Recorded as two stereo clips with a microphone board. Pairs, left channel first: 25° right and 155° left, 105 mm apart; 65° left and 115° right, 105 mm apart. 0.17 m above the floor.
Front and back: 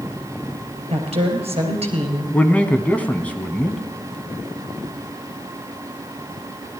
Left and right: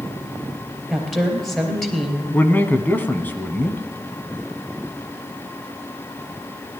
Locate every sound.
0.9 s a woman speaking: 155° left, 3 m
2.3 s a man speaking: 30° left, 1.0 m